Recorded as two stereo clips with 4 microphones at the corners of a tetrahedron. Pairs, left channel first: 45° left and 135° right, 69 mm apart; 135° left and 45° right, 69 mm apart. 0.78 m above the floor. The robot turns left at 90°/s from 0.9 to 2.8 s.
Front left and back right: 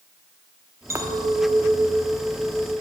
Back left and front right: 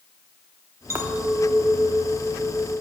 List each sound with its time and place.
0.9 s a clink: 85° right, 0.8 m; by 2.7 s 110° left, 0.8 m